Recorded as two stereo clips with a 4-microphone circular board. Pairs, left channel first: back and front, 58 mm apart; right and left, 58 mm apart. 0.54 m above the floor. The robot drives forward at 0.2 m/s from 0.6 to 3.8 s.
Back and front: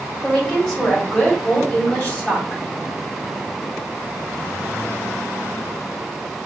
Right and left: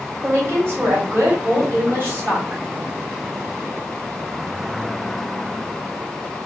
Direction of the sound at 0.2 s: 110° left.